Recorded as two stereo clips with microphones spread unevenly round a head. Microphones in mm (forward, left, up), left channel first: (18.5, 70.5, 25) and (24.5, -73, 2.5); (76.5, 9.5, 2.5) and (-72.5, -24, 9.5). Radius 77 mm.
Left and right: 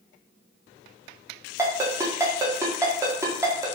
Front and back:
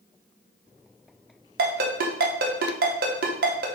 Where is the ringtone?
165° right, 0.6 m.